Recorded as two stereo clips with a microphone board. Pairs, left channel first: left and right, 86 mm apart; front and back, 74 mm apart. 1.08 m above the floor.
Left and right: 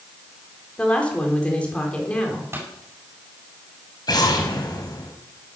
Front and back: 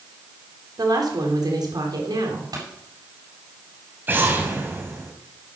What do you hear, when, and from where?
0.8 s a woman speaking: 165° left, 4 m
2.5 s a pop: 150° right, 8 m
4.1 s an explosion: 120° left, 2.5 m